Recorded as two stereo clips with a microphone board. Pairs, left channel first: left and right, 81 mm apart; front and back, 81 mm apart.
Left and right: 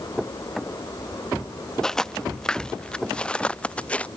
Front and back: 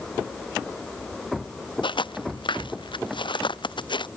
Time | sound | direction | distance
1.8 | footsteps | 5° left | ?